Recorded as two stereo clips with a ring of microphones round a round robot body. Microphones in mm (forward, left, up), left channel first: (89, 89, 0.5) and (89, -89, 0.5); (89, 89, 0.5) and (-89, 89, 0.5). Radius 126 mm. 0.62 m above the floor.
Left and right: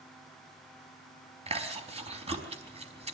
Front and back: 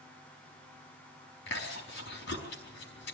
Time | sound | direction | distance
1.5 | chewing | 35° right | 4.5 m